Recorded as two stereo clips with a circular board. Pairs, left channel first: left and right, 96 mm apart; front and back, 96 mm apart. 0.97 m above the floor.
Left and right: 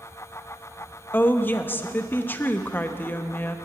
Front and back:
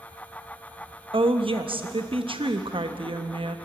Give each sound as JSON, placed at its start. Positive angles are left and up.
{"t": 1.1, "sound": "a woman speaking", "azimuth_deg": 160, "distance_m": 0.8}